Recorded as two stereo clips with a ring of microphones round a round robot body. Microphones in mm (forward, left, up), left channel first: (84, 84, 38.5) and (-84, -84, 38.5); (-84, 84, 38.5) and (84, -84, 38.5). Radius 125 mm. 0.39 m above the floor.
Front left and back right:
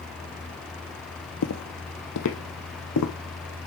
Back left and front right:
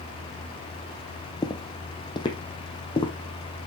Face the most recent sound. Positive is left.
turn(degrees=65)